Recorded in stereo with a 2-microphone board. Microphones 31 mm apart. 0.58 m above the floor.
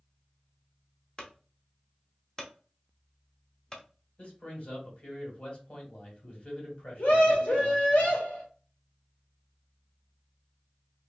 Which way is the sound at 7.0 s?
65° left (ahead or behind).